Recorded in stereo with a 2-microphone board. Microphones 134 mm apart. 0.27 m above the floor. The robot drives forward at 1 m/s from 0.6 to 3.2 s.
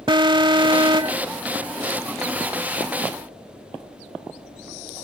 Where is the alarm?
35° right (ahead or behind).